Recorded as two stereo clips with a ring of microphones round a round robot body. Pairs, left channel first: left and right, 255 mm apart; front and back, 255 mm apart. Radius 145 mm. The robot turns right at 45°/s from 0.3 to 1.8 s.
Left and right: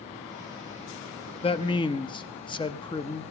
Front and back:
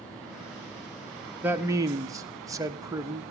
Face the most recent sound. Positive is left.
turn(degrees=125)